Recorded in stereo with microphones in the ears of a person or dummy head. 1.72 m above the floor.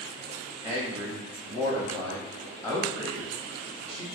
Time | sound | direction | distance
0.6 | a man speaking | 30° left (ahead or behind) | 1.2 m